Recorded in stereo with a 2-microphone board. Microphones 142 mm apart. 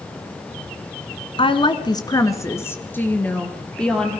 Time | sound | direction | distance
1.4 | a woman speaking | 40° left (ahead or behind) | 1.5 m